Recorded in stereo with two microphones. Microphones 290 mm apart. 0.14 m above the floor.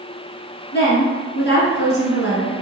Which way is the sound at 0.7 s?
40° left (ahead or behind).